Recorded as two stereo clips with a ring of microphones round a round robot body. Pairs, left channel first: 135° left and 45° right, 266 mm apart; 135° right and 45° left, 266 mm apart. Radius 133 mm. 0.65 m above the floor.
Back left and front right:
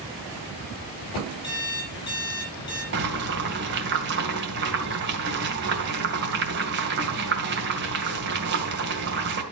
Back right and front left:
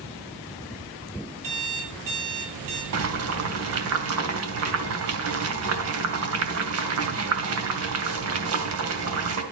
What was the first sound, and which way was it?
An alarm clock, 60° left.